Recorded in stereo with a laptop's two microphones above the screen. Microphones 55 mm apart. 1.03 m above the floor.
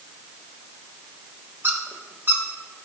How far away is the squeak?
About 0.8 m.